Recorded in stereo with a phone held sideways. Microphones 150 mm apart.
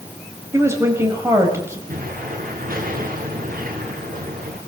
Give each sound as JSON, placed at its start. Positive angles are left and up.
{"t": 0.5, "sound": "a woman speaking", "side_deg": -20, "distance_m": 5.5}
{"t": 1.9, "sound": "an explosion", "side_deg": -75, "distance_m": 6.0}